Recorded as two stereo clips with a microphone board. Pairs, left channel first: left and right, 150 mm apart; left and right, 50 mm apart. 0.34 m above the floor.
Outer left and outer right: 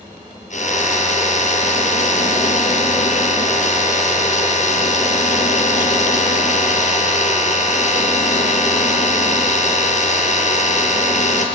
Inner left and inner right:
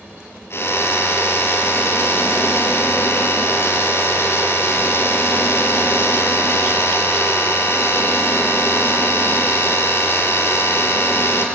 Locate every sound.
0.5 s a drill: 60° left (ahead or behind), 5 m